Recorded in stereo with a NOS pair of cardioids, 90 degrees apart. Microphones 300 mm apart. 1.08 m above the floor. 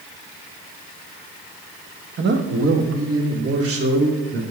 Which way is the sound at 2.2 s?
35° right.